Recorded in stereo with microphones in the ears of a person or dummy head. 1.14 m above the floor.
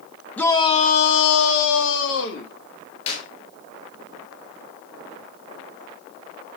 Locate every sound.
0.4 s a shout: 10° left (ahead or behind), 1.0 m; by 2.5 s 60° left (ahead or behind), 2.0 m
3.1 s a clap: 35° left (ahead or behind), 6.5 m